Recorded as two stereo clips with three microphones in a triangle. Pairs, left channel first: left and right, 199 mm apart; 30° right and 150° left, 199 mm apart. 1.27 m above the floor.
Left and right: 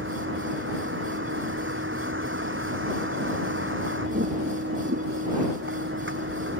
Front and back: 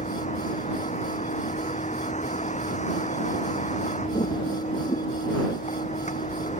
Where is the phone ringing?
I don't hear a phone ringing.